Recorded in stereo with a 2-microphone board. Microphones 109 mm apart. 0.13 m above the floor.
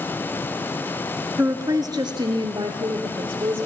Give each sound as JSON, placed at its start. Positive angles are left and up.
{"t": 1.4, "sound": "a woman speaking", "side_deg": -25, "distance_m": 1.5}